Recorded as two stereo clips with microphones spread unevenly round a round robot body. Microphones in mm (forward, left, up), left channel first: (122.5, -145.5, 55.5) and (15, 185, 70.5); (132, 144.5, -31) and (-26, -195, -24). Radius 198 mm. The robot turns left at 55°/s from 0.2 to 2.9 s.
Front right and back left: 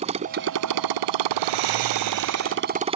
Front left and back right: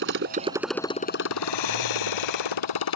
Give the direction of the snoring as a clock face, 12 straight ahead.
8 o'clock.